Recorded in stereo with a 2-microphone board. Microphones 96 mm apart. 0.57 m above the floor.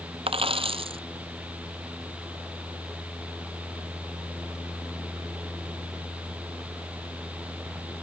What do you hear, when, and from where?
0.3 s a dropped coin: 75° right (ahead or behind)